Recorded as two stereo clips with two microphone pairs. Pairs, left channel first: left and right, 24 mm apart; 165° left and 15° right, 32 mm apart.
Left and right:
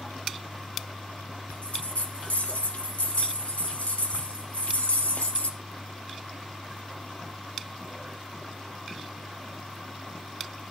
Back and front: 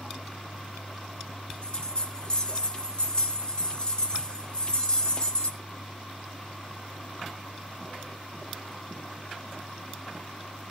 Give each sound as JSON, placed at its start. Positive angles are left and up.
{"t": 1.5, "sound": "a bell", "azimuth_deg": 105, "distance_m": 1.0}